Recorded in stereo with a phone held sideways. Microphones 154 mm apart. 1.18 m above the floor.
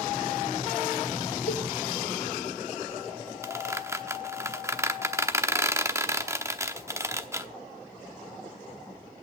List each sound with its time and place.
1.5 s a cowbell: 65° left (ahead or behind), 0.8 m
3.4 s a squeak: 20° right (ahead or behind), 0.9 m